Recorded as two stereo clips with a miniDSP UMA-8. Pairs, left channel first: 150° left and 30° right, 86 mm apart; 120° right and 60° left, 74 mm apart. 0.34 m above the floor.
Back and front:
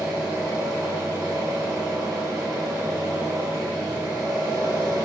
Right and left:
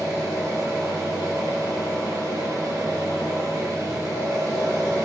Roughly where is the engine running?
Ahead left.